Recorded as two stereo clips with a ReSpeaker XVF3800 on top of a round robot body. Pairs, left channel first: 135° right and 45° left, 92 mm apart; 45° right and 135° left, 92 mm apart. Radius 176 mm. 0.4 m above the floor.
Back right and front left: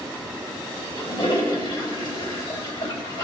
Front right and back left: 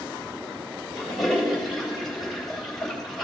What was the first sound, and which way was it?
A toilet flushing, 135° right.